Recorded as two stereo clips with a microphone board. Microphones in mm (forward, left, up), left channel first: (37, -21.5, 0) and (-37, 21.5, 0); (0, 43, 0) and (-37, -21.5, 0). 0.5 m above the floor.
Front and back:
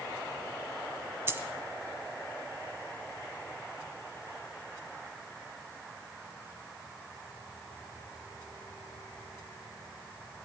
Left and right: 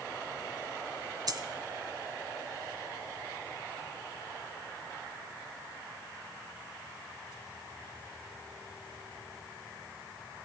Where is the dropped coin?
150° right, 1.3 m.